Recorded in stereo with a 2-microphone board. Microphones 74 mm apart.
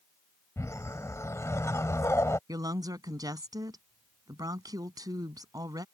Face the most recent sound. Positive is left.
turn(degrees=-60)  # may be behind; listen again after turning